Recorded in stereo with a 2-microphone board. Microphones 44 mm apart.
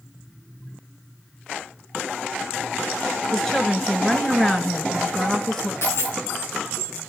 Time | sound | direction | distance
3.3 | a woman speaking | 10° left (ahead or behind) | 1.8 m
5.8 | a dropped coin | 65° left (ahead or behind) | 9.5 m